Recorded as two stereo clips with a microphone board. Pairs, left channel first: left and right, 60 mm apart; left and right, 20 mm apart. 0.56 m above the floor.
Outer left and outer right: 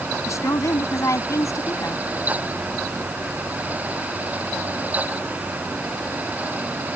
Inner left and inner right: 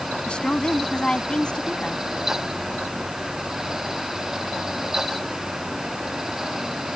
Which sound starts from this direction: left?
A woman speaking, at 0.3 s.